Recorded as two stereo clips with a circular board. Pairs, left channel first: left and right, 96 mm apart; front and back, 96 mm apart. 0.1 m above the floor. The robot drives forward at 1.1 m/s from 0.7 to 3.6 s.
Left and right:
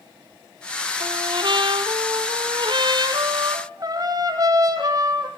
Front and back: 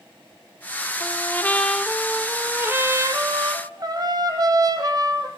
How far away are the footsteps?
No footsteps in this recording.